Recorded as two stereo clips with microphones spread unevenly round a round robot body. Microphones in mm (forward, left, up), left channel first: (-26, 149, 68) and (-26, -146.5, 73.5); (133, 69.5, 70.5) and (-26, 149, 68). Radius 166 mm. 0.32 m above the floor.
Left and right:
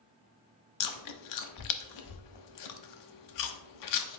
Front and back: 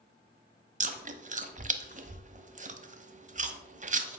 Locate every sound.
0.8 s chewing: 105° left, 0.9 m